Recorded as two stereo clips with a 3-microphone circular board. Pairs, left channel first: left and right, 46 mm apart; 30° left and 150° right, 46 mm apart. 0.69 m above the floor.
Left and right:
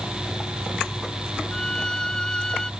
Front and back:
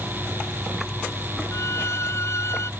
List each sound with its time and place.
1.5 s a violin: 15° left